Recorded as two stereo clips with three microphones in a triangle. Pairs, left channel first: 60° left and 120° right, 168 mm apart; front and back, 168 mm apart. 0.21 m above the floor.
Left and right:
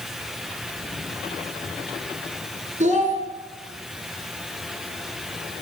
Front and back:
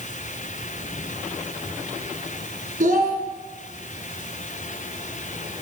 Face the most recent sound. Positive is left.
turn(degrees=-155)